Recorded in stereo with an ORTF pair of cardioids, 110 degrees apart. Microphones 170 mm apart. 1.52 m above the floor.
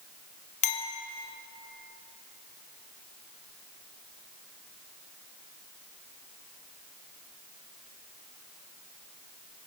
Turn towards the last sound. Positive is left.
turn(degrees=45)